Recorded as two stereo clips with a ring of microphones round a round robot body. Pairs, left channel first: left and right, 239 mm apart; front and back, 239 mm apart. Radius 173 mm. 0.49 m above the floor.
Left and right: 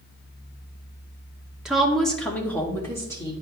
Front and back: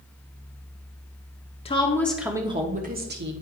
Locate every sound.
1.6 s a woman speaking: 5° right, 0.9 m; by 3.3 s 165° left, 1.2 m